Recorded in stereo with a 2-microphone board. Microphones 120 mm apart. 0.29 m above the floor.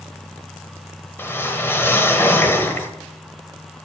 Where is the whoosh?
20° left (ahead or behind), 1.1 m.